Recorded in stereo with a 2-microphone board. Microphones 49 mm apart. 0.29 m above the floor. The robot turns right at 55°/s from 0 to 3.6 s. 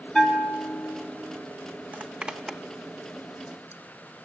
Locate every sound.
0.1 s a bell: 15° left, 3.5 m; by 1.0 s 60° left, 3.5 m
1.9 s a zipper: 35° right (ahead or behind), 0.8 m; by 4.3 s 55° left (ahead or behind), 0.8 m